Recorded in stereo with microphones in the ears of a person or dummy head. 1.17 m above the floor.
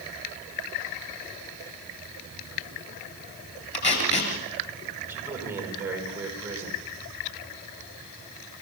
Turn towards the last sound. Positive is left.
turn(degrees=-10)  # may be behind; listen again after turning